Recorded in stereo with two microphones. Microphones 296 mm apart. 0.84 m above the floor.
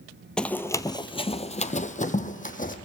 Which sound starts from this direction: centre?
Running footsteps, at 0.4 s.